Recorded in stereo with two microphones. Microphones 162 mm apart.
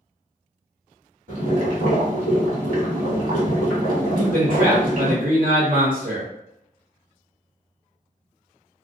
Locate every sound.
1.3 s boiling: 65° right (ahead or behind), 1.6 m
4.2 s a man speaking: 65° right (ahead or behind), 1.6 m